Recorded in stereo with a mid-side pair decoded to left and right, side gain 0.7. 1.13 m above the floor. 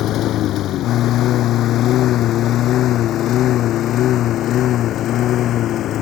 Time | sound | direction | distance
0.0 | a lawn mower | 50° left | ?